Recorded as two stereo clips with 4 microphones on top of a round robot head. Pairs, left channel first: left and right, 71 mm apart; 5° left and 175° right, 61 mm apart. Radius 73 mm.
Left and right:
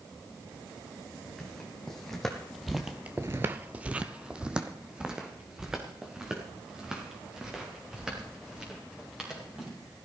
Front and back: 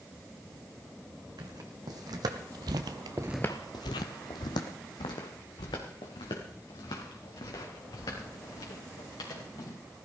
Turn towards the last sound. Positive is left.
turn(degrees=-10)